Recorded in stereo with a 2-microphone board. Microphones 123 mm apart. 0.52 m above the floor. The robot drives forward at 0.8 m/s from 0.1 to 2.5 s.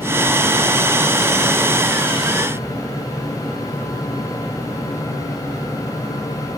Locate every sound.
Only background noise.